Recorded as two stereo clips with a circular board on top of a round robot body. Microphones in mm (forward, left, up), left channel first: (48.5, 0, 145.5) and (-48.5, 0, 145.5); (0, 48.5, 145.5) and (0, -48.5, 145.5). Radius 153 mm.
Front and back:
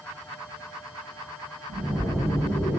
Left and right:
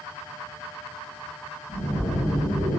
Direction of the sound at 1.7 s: 110° left.